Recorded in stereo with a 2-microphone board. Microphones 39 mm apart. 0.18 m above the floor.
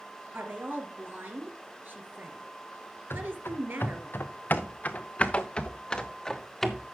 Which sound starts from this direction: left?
Running footsteps, at 3.1 s.